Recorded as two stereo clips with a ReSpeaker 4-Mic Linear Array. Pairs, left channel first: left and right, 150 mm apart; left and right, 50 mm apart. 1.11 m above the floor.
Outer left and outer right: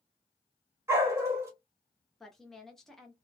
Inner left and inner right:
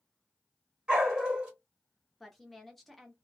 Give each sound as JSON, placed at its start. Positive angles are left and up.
{"t": 0.9, "sound": "a dog barking", "side_deg": -15, "distance_m": 1.3}
{"t": 2.2, "sound": "a woman speaking", "side_deg": 0, "distance_m": 0.7}